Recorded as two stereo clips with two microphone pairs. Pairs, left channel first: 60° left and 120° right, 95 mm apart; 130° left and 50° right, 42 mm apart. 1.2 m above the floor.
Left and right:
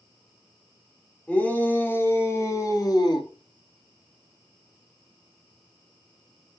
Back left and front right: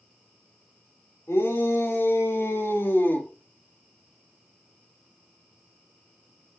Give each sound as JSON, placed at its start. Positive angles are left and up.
{"t": 1.3, "sound": "a shout", "azimuth_deg": 135, "distance_m": 4.5}